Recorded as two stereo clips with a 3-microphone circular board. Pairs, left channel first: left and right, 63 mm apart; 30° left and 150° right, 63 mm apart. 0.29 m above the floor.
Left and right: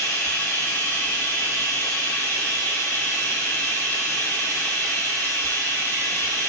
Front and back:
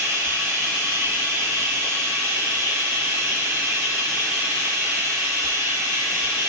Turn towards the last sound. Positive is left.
turn(degrees=155)